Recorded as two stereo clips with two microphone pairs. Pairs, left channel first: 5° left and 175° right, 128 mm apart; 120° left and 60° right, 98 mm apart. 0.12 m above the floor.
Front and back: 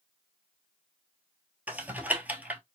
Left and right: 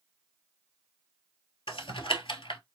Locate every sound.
1.7 s typing on a keyboard: 110° left, 0.6 m